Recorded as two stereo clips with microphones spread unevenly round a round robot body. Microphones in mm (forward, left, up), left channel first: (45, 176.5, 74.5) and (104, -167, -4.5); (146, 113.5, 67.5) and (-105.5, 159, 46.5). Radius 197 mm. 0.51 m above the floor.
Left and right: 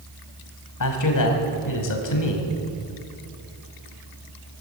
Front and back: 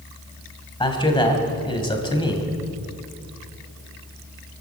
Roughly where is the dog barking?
I don't hear a dog barking.